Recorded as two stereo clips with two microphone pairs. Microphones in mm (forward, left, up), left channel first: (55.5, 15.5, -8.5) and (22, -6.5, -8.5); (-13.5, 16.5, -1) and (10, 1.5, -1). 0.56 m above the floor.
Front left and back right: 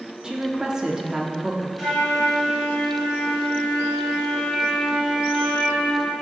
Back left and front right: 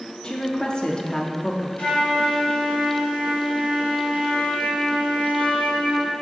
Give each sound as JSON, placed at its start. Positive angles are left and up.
{"t": 0.2, "sound": "a woman speaking", "azimuth_deg": 155, "distance_m": 0.6}
{"t": 1.8, "sound": "a flute", "azimuth_deg": 130, "distance_m": 2.0}